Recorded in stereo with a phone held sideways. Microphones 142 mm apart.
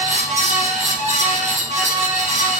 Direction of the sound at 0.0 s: 55° right (ahead or behind).